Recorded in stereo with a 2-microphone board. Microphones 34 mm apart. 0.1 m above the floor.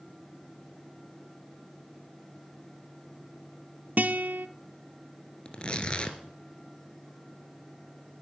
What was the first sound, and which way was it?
A guitar, 60° right (ahead or behind).